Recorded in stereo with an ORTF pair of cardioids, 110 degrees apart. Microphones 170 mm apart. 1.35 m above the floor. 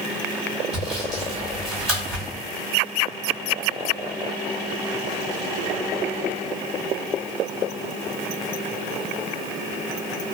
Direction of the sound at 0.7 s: 5° right.